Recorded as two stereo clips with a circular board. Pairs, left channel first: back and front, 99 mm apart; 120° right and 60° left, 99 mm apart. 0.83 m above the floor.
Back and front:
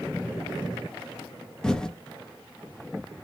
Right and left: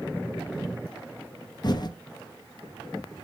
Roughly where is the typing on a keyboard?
Right.